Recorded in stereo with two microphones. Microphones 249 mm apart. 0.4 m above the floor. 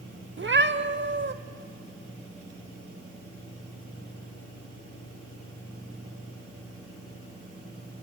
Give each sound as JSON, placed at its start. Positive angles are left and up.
{"t": 0.4, "sound": "a cat meowing", "side_deg": -50, "distance_m": 0.8}